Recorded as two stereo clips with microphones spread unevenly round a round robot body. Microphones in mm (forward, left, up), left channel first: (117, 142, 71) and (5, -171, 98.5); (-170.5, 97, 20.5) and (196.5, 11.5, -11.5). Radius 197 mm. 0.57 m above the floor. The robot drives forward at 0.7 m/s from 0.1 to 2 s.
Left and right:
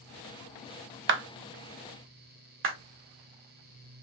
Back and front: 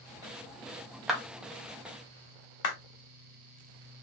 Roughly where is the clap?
Right.